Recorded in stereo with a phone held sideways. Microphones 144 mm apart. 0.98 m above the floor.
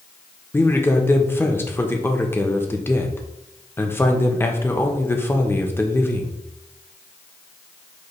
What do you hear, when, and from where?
0.5 s a man speaking: 15° left (ahead or behind), 0.6 m